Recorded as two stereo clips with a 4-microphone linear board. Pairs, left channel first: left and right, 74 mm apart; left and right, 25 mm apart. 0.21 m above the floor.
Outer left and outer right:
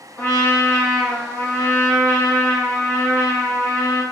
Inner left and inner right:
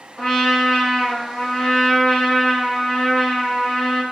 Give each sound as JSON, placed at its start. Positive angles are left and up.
{"t": 0.2, "sound": "a trumpet", "side_deg": 25, "distance_m": 1.3}